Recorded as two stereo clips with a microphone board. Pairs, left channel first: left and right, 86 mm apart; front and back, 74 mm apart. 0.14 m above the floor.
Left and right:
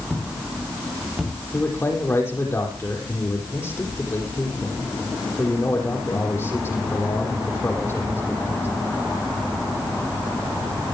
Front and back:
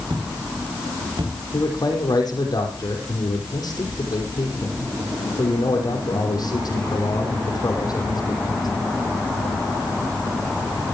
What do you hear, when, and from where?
0.1 s footsteps: straight behind, 5.5 m; by 1.3 s 170° right, 6 m
1.5 s a man speaking: 30° left, 5.5 m